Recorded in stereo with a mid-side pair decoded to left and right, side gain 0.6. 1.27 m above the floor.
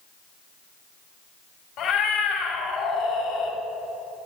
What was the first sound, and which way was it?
A cat meowing, 60° left.